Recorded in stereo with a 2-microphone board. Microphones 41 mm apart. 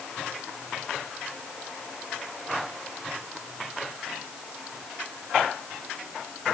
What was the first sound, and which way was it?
Only background noise.